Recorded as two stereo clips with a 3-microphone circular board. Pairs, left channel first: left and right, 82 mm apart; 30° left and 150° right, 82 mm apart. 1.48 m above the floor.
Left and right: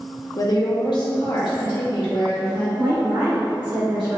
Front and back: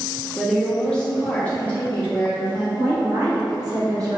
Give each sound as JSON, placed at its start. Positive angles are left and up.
{"t": 0.4, "sound": "a woman speaking", "azimuth_deg": 120, "distance_m": 0.6}
{"t": 2.8, "sound": "a woman speaking", "azimuth_deg": -105, "distance_m": 1.4}